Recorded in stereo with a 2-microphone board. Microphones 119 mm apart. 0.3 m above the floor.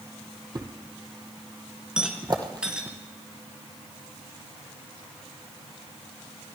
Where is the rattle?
5° right (ahead or behind), 1.9 m.